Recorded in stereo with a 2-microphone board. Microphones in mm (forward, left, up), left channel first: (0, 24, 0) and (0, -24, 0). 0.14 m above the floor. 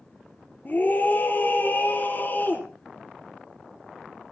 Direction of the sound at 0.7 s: 40° left (ahead or behind).